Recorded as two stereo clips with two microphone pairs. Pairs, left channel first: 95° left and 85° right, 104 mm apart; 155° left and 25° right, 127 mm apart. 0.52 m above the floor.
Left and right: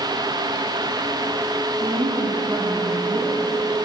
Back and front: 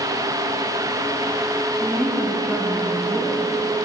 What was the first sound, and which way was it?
A woman speaking, 100° right.